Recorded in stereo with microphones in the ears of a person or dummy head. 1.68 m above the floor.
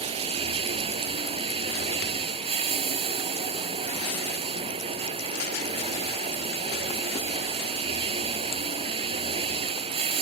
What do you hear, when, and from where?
0.0 s running water: 30° right (ahead or behind)